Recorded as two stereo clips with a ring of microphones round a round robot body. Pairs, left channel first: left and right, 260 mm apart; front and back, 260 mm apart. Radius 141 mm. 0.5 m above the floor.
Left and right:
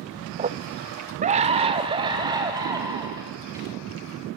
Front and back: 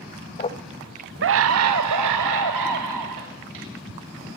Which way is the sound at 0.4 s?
45° right.